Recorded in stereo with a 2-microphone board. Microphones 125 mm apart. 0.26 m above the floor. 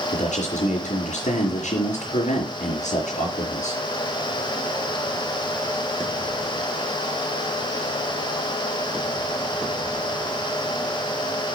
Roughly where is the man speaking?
Left.